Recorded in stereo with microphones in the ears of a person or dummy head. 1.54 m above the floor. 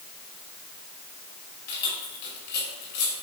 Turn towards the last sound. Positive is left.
turn(degrees=60)  # may be behind; listen again after turning